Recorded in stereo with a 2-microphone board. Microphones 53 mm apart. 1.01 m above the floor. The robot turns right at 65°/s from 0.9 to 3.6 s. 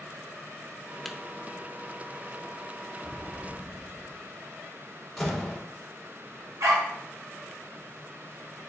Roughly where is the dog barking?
Right.